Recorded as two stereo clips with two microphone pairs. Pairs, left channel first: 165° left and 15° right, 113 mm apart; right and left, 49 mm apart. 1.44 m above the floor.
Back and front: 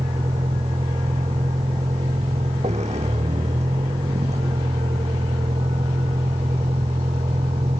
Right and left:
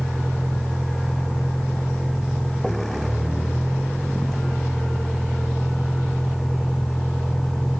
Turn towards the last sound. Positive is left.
turn(degrees=-5)